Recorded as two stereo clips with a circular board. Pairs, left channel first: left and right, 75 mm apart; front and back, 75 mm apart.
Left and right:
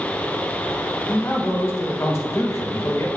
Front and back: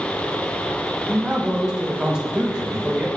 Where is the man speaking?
110° left, 0.8 m.